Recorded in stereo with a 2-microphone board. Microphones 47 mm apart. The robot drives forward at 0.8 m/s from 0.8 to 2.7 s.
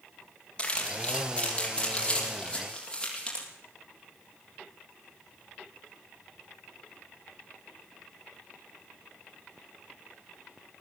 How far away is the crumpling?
About 6 m.